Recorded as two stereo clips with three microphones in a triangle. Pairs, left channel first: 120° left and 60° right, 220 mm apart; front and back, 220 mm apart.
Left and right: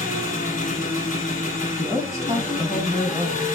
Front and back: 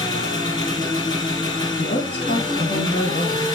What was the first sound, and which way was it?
An engine running, 70° left.